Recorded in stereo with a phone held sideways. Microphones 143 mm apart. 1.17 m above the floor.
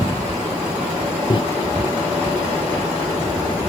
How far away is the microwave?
About 0.6 m.